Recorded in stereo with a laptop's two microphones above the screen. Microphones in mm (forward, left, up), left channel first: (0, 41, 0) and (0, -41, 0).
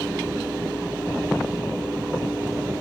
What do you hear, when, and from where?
0.0 s a fan: 15° right (ahead or behind), 9.5 m